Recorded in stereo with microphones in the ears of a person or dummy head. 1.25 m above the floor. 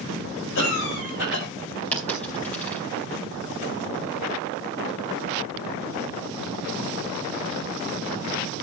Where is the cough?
75° left (ahead or behind), 5.5 m.